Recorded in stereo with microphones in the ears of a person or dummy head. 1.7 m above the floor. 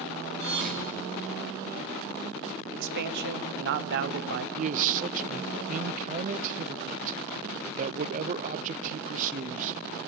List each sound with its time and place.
0.4 s a thud: 55° right (ahead or behind), 2.5 m
2.7 s a man speaking: 60° right (ahead or behind), 0.9 m
4.5 s a man speaking: 40° right (ahead or behind), 0.6 m